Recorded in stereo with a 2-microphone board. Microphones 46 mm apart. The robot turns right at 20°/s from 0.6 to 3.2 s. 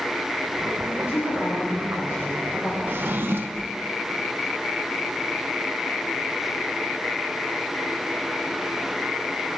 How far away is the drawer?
About 0.6 m.